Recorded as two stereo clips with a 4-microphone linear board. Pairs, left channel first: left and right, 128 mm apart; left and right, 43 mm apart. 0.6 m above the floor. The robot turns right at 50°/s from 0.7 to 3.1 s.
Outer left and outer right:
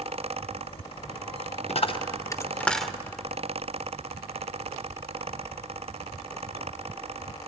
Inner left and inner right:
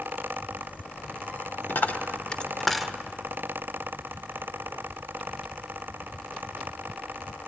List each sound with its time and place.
1.7 s a dropped coin: 60° left (ahead or behind), 0.6 m; by 2.9 s 5° right (ahead or behind), 0.6 m